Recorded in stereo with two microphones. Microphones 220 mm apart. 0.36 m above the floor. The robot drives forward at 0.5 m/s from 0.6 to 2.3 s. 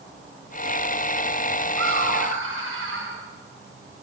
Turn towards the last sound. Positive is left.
turn(degrees=-75)  # may be behind; listen again after turning